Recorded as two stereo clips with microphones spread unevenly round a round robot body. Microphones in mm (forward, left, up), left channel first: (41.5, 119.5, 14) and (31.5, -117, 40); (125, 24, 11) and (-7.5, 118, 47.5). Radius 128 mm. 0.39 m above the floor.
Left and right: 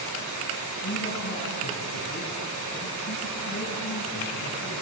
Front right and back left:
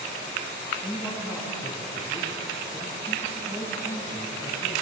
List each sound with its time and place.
0.8 s a man speaking: 40° left, 4 m